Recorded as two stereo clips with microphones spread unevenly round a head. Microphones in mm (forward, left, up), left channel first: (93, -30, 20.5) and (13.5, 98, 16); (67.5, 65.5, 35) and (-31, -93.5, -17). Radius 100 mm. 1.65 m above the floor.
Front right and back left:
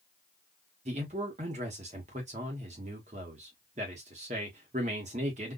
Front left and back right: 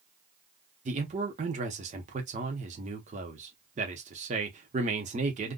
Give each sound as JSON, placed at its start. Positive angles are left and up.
{"t": 0.8, "sound": "a man speaking", "azimuth_deg": 175, "distance_m": 0.8}